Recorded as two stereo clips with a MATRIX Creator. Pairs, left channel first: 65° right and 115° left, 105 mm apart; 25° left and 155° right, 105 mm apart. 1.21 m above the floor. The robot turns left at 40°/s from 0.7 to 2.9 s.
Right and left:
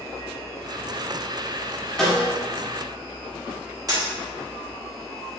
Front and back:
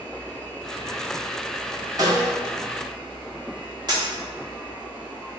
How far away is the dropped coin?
About 1.2 m.